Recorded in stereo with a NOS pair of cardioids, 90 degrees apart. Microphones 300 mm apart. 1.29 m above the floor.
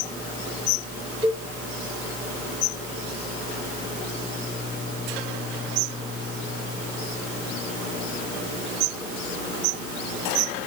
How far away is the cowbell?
About 1.1 m.